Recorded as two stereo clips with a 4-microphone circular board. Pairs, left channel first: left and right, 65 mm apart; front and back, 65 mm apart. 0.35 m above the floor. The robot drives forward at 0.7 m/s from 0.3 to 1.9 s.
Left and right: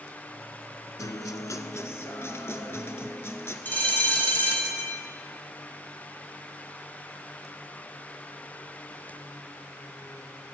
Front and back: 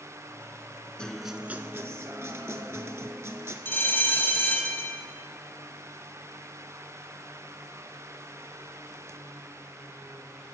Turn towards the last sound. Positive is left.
turn(degrees=40)